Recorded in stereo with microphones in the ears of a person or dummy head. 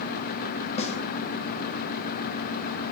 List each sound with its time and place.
0.8 s a snare drum: 40° left (ahead or behind), 1.1 m